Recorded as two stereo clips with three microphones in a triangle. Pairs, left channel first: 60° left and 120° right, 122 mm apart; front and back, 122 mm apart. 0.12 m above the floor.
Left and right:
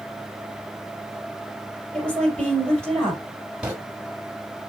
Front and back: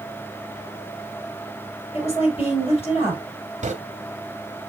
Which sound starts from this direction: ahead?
A woman speaking, at 1.9 s.